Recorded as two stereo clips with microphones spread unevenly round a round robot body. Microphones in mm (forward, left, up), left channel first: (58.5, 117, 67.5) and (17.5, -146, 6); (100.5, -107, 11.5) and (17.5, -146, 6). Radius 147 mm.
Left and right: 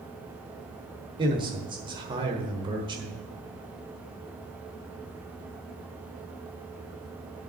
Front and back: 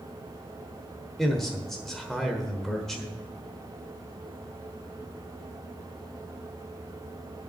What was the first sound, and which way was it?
A man speaking, 65° right.